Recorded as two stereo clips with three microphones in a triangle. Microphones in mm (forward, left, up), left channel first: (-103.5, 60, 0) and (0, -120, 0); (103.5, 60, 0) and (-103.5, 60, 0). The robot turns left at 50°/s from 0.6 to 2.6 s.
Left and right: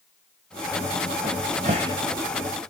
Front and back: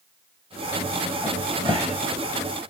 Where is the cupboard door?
90° right, 1.9 m; by 1.9 s 130° right, 1.9 m.